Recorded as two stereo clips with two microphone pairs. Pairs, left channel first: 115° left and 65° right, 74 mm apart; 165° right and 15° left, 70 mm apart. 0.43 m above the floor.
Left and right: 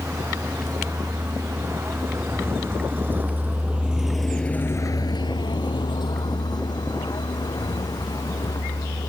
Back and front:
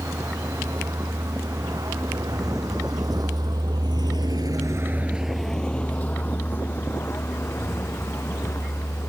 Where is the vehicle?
15° right; by 9.1 s 145° left.